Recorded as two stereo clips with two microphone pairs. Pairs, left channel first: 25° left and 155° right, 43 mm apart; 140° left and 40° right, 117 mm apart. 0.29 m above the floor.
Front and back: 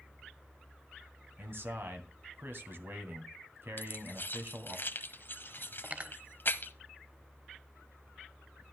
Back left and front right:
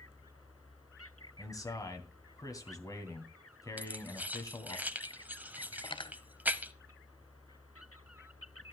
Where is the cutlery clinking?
160° left, 0.8 m.